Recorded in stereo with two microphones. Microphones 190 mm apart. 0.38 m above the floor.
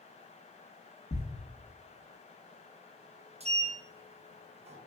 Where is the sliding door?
35° right (ahead or behind), 0.6 m.